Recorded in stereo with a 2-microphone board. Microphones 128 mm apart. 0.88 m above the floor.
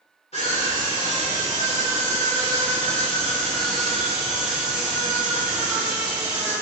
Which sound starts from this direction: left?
A scream, at 0.3 s.